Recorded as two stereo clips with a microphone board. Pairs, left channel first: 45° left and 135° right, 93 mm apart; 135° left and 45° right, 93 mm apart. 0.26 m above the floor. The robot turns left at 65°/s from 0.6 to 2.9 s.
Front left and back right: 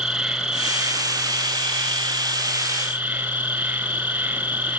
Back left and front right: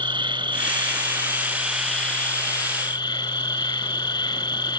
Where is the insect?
50° right, 2.5 m; by 4.8 s 160° left, 2.5 m.